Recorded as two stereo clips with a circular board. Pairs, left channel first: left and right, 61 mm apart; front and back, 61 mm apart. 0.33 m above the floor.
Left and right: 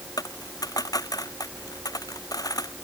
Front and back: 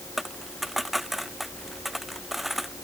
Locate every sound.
0.2 s a dropped coin: 90° left